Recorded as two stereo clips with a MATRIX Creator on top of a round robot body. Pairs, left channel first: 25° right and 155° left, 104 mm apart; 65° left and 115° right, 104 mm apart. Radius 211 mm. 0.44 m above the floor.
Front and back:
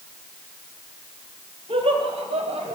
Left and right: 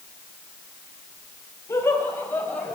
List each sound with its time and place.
1.7 s laughter: 130° left, 4.5 m; by 2.8 s 145° left, 5 m